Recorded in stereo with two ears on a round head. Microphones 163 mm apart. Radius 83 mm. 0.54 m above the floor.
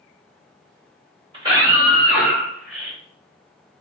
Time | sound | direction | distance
1.3 | a scream | 25° right (ahead or behind) | 1.5 m